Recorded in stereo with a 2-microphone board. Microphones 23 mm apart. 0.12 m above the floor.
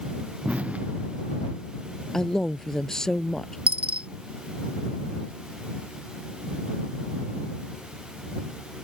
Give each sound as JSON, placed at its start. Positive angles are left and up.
{"t": 0.5, "sound": "an explosion", "side_deg": -75}
{"t": 2.1, "sound": "a man speaking", "side_deg": 25}
{"t": 3.7, "sound": "a dropped coin", "side_deg": -75}